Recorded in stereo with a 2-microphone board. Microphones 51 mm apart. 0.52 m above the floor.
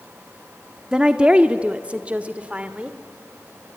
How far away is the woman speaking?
About 0.8 m.